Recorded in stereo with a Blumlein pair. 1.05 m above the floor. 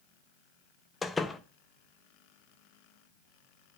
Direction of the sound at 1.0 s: 10° left.